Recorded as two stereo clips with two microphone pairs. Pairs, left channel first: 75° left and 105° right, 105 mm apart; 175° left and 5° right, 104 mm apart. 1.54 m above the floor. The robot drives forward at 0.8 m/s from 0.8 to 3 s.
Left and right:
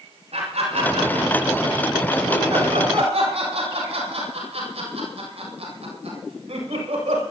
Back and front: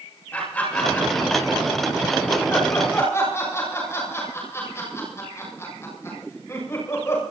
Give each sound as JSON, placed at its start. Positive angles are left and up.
{"t": 0.3, "sound": "laughter", "azimuth_deg": -110, "distance_m": 7.5}